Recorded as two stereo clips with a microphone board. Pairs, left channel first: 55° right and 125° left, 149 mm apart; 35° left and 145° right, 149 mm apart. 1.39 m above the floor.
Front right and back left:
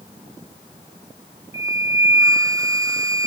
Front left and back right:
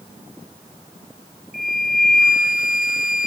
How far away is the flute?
About 0.8 m.